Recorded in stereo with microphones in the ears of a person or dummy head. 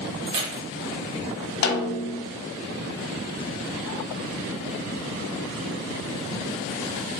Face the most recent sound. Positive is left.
turn(degrees=50)  # may be behind; listen again after turning